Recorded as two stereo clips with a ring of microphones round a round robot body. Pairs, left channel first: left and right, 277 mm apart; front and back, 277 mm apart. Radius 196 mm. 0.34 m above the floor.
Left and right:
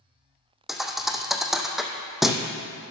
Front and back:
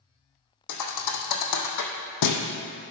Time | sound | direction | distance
0.7 | a thud | straight ahead | 1.3 m